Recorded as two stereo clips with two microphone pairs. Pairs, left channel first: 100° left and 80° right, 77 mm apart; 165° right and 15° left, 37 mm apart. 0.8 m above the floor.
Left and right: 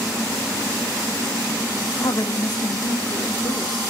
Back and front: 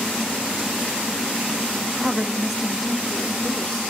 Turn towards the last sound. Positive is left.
turn(degrees=110)